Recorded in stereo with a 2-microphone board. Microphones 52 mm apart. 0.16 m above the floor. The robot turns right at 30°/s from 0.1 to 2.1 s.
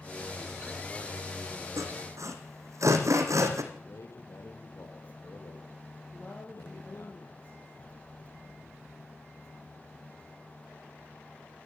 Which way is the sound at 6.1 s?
30° left (ahead or behind).